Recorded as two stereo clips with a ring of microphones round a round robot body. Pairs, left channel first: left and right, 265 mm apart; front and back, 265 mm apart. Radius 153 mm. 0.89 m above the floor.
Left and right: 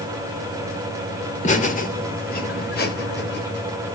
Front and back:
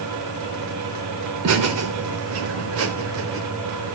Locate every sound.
1.4 s laughter: 155° left, 3 m; by 3.4 s 140° left, 4 m